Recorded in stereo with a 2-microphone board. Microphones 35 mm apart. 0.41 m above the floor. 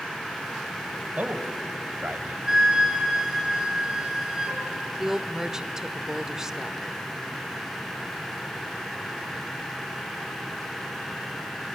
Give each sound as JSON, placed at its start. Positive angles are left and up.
{"t": 1.2, "sound": "a man speaking", "side_deg": -65, "distance_m": 1.7}
{"t": 2.5, "sound": "a flute", "side_deg": -15, "distance_m": 3.5}
{"t": 5.0, "sound": "a woman speaking", "side_deg": -15, "distance_m": 0.9}